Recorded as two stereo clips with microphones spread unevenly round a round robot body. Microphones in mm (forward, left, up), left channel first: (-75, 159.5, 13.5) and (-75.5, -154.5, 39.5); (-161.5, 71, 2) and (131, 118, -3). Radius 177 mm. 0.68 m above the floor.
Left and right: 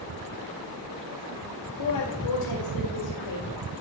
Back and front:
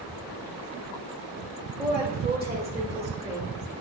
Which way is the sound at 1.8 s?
75° left.